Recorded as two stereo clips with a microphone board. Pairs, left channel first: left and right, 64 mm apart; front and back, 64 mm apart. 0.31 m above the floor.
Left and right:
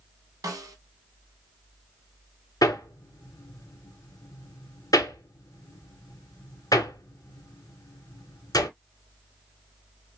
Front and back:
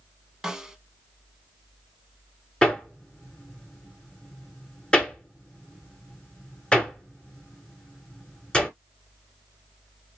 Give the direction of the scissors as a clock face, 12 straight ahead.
No scissors in this recording.